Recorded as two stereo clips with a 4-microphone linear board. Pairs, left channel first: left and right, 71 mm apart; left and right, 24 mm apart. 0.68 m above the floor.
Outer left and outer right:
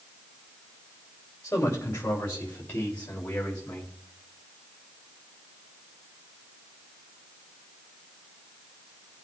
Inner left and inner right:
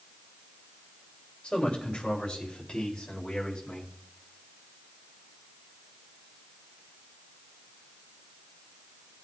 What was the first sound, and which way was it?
A man speaking, 40° left (ahead or behind).